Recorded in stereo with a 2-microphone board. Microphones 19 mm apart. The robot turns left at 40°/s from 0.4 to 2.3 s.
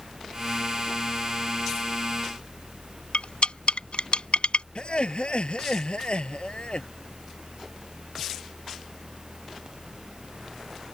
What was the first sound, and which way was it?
Cutlery clinking, 75° left (ahead or behind).